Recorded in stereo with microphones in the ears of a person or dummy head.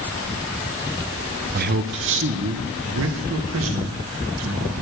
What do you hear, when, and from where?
1.5 s a man speaking: 35° right (ahead or behind), 0.6 m; by 4.8 s 75° right (ahead or behind), 2 m